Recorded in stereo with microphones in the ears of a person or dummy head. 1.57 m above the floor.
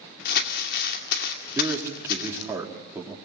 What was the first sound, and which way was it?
Crumpling, 65° left (ahead or behind).